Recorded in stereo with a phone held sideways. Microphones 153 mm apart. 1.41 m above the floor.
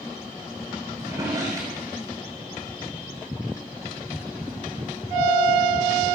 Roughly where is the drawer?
Right.